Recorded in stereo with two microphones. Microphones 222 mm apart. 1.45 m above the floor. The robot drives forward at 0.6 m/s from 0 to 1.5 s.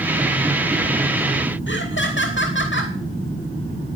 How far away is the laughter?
About 2.5 m.